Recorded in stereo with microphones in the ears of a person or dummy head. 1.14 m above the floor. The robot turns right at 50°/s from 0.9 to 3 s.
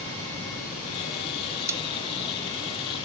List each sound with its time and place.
1.7 s a pop: 15° right (ahead or behind), 0.5 m; by 1.8 s 10° right (ahead or behind), 0.5 m